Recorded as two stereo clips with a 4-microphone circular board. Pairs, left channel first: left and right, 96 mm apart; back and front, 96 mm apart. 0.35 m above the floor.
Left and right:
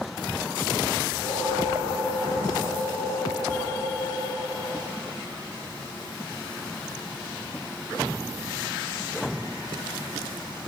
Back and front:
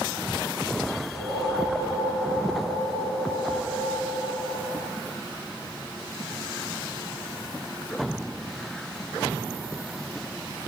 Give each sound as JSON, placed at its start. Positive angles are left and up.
{"t": 1.1, "sound": "a whoosh", "azimuth_deg": 20, "distance_m": 2.5}